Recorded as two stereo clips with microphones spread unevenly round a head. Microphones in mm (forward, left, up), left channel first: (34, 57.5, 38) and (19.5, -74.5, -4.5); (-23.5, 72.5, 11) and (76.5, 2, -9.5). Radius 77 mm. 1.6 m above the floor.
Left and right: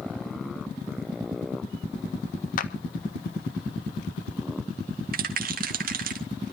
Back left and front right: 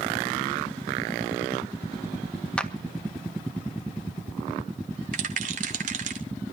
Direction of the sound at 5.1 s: 75° right.